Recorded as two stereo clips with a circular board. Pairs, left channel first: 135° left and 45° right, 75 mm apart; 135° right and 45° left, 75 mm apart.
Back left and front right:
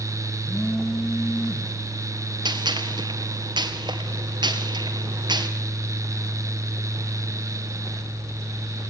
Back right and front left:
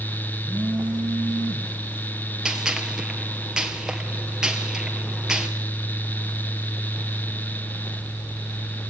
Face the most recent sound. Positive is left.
turn(degrees=-35)